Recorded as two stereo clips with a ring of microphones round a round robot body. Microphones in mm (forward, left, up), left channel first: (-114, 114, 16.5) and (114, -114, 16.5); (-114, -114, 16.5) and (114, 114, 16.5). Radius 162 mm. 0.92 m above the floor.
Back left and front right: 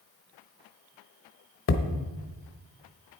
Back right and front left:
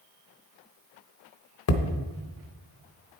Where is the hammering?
175° right, 0.9 m.